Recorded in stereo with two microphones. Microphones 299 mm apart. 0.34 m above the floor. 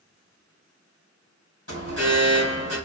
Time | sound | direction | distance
1.7 | an alarm | 55° left (ahead or behind) | 3.5 m